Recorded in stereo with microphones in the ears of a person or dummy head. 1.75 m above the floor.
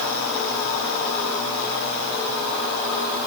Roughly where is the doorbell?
I don't hear a doorbell.